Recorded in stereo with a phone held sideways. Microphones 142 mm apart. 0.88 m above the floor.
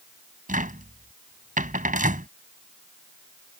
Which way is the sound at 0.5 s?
90° right.